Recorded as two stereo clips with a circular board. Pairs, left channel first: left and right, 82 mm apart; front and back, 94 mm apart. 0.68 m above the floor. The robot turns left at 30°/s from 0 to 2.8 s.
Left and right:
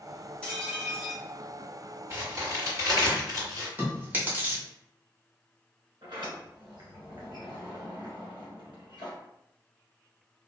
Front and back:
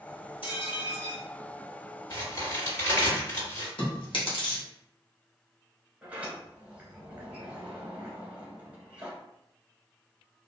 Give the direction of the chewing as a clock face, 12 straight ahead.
1 o'clock.